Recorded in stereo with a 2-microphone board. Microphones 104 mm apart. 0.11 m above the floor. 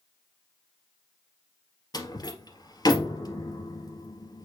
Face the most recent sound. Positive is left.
turn(degrees=40)  # may be behind; listen again after turning